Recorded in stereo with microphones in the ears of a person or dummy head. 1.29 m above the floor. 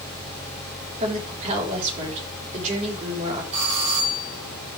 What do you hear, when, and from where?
1.0 s a woman speaking: 40° right (ahead or behind), 4 m
3.5 s a doorbell: 35° right (ahead or behind), 7.5 m